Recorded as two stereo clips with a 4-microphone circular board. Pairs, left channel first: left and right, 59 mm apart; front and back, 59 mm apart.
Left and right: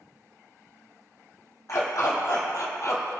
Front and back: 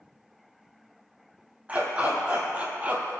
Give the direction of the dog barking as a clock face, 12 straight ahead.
8 o'clock.